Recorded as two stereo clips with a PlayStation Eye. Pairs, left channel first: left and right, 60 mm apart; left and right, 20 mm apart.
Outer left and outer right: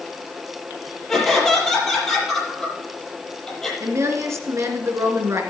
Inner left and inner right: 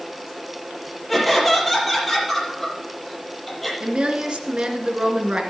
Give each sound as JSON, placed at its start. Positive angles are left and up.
{"t": 1.1, "sound": "laughter", "side_deg": 5, "distance_m": 6.5}
{"t": 3.8, "sound": "a woman speaking", "side_deg": -50, "distance_m": 2.5}